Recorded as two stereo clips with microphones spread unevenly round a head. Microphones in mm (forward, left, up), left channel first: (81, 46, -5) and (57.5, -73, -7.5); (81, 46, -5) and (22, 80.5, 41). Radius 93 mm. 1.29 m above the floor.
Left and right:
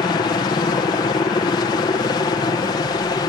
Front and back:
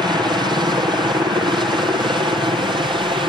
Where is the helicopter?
115° left; by 3.3 s 125° left.